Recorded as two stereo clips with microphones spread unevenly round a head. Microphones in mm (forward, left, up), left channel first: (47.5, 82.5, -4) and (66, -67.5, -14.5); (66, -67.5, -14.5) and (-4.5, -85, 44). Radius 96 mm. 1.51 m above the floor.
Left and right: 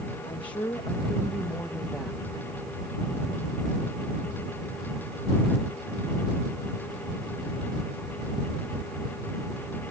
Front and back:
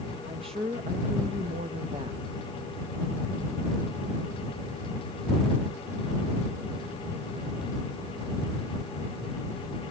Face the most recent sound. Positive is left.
turn(degrees=-165)